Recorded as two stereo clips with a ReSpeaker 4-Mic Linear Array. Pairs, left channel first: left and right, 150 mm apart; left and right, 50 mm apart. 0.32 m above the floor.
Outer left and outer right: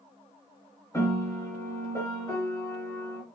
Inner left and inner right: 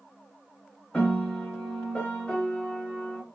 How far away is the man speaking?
No man speaking in this recording.